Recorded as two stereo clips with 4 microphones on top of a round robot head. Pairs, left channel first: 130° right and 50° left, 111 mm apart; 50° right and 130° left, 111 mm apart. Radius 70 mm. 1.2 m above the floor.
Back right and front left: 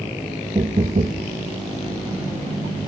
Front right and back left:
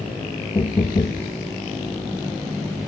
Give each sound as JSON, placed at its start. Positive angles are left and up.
{"t": 0.6, "sound": "knocking", "azimuth_deg": 10, "distance_m": 0.8}